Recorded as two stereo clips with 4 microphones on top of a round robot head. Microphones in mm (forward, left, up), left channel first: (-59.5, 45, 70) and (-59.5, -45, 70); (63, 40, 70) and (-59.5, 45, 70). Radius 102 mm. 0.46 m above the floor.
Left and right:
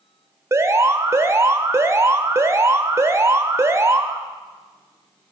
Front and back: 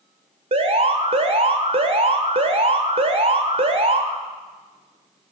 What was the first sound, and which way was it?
An alarm, 145° right.